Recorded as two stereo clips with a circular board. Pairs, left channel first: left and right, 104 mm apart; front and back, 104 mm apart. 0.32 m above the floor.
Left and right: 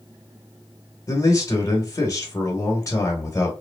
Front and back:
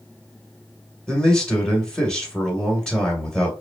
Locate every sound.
1.1 s a man speaking: 75° left, 1.5 m